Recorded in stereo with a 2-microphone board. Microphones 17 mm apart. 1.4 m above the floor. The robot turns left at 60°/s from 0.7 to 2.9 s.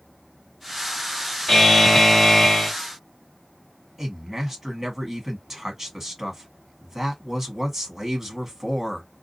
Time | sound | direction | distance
1.5 | a buzzer | 105° left | 1.6 m
4.0 | a man speaking | 10° right (ahead or behind) | 1.5 m